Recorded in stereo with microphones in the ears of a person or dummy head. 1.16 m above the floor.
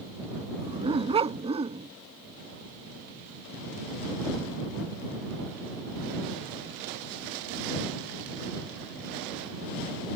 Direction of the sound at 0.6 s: 30° right (ahead or behind).